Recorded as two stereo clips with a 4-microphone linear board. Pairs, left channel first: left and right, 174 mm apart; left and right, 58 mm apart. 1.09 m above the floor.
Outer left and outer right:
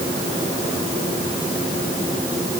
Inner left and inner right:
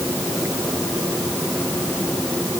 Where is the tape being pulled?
No tape being pulled in this recording.